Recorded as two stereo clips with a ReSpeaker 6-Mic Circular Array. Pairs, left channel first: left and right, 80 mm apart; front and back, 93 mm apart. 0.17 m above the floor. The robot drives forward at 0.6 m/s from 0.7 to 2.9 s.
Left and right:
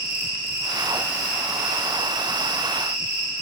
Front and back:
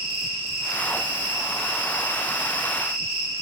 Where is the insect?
155° right, 2.5 m; by 3.4 s 165° right, 4 m.